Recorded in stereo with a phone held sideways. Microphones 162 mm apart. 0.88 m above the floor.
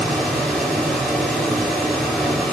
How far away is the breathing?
I don't hear breathing.